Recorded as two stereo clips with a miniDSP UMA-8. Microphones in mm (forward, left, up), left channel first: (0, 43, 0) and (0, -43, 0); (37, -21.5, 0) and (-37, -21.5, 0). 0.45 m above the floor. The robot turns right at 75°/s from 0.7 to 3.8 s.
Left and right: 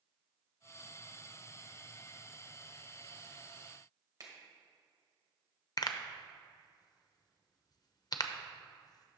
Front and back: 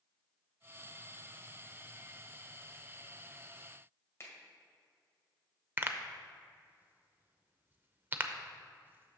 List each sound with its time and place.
4.2 s a finger snap: 50° right, 1.6 m
5.8 s a pop: 120° left, 0.6 m